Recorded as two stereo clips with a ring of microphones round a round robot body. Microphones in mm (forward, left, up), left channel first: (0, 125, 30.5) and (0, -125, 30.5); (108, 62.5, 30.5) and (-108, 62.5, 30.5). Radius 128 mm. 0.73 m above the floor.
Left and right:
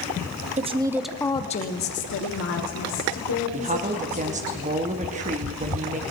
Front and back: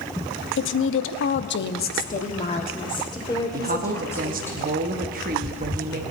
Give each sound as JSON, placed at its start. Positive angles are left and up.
{"t": 0.6, "sound": "a woman speaking", "azimuth_deg": -30, "distance_m": 0.8}
{"t": 3.5, "sound": "a woman speaking", "azimuth_deg": -145, "distance_m": 1.0}